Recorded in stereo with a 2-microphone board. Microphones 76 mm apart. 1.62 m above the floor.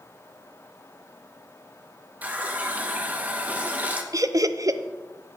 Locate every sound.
2.2 s a running tap: 20° right (ahead or behind), 0.9 m
4.1 s laughter: 45° right (ahead or behind), 0.5 m